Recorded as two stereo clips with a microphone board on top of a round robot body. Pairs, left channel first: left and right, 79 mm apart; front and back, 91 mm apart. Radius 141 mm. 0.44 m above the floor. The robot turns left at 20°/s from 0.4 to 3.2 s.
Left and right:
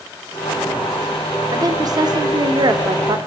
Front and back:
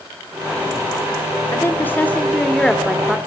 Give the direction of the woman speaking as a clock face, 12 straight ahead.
2 o'clock.